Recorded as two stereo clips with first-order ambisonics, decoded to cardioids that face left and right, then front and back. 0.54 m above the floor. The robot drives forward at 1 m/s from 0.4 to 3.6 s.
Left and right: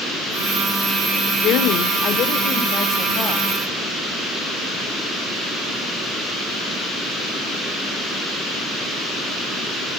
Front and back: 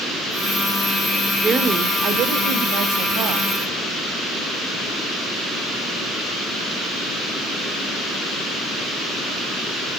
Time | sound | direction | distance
1.4 | a woman speaking | 110° left | 1.3 m